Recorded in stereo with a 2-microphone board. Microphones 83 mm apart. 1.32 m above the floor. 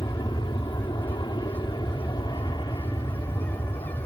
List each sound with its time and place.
0.0 s an aircraft: 70° left (ahead or behind); by 4.1 s 55° left (ahead or behind)